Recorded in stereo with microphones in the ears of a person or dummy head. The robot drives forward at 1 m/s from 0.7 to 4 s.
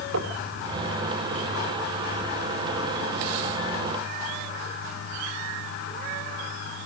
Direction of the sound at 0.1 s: 80° right.